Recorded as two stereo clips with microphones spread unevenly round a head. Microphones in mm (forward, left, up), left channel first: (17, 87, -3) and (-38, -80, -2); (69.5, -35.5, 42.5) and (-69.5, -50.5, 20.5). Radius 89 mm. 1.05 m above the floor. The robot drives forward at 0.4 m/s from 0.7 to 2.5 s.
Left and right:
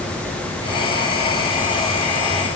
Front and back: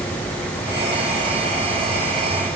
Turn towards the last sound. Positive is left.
No sound to turn to.